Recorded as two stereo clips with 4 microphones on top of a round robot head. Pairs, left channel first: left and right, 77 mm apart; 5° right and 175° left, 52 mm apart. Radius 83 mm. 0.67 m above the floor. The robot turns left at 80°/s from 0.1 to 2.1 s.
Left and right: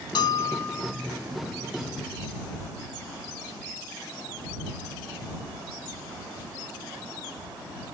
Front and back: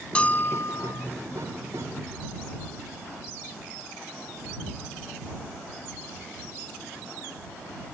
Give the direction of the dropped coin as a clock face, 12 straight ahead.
I don't hear a dropped coin.